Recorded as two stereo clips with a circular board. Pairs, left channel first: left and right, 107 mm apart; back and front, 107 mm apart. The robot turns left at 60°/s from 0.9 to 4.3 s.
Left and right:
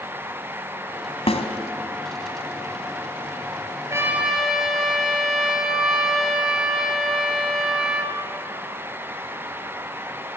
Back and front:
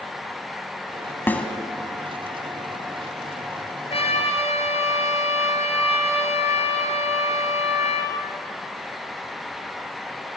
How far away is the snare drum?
About 1.6 m.